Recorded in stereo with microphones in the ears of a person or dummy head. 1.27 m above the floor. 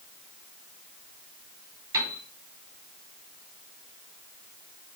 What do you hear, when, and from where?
1.9 s a piano: 20° right (ahead or behind), 2.5 m